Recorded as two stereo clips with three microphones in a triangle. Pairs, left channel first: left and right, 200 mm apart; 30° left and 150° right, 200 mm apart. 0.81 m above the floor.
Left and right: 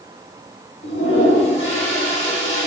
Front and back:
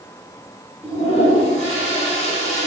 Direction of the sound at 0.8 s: 85° left.